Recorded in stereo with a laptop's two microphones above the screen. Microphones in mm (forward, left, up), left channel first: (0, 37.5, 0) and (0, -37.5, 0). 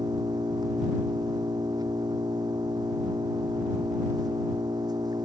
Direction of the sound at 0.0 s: 60° right (ahead or behind).